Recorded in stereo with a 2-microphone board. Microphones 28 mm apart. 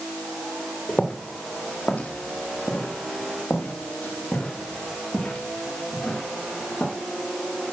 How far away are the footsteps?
About 1.7 m.